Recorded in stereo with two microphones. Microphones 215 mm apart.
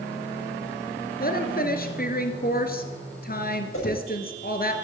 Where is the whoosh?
75° left (ahead or behind), 10 m.